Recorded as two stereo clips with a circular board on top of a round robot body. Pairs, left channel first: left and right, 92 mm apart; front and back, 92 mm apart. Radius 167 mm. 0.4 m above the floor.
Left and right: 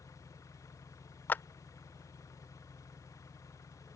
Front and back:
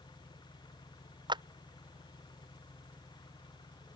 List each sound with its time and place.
0.0 s an engine running: 35° left
1.3 s a clap: 155° left